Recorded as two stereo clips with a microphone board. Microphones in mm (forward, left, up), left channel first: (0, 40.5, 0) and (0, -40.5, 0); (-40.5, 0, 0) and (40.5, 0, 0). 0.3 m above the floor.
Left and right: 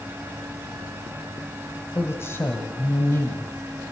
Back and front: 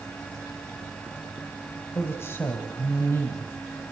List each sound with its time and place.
1.9 s a woman speaking: 135° left, 1.8 m